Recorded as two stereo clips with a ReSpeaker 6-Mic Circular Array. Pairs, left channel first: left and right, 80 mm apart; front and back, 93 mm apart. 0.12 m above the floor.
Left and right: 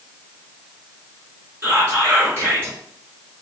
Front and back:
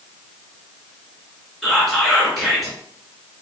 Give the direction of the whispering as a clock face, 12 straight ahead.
3 o'clock.